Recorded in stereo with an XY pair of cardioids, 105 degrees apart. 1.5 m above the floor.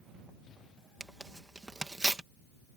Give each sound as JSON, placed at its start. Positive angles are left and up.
{"t": 1.0, "sound": "tearing paper", "azimuth_deg": -20}